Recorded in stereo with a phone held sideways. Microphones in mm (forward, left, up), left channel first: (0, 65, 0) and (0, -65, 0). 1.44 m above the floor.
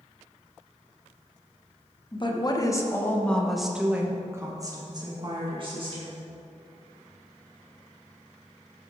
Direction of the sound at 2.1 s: 40° left (ahead or behind).